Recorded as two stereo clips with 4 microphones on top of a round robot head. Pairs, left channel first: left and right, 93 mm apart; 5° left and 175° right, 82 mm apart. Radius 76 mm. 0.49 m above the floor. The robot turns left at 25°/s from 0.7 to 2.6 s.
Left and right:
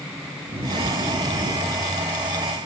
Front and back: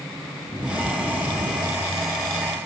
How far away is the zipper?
About 3.5 m.